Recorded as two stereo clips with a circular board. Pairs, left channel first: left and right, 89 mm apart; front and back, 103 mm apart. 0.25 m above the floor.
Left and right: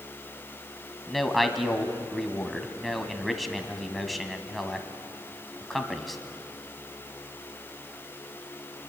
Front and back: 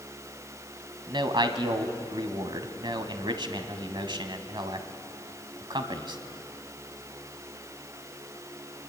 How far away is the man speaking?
About 1.4 m.